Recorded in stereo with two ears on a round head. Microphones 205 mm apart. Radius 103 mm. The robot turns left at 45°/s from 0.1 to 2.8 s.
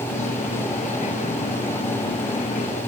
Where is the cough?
I don't hear a cough.